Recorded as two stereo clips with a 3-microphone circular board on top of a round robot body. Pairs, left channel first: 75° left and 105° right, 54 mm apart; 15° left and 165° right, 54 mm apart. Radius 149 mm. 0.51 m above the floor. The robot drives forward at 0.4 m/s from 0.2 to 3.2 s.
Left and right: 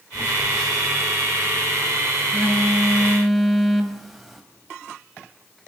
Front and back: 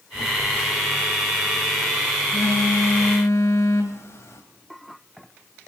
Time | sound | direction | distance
0.1 | a phone buzzing | 10° right | 3.5 m